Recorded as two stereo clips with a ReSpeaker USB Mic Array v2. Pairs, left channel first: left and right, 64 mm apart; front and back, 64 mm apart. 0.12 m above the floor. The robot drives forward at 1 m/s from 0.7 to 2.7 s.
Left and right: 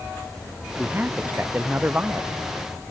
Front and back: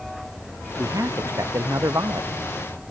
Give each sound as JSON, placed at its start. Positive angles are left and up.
{"t": 0.8, "sound": "a man speaking", "azimuth_deg": -150}